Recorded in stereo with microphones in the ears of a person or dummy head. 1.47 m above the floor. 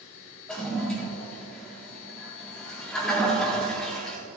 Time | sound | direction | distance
0.5 | a toilet flushing | centre (ahead or behind) | 4 m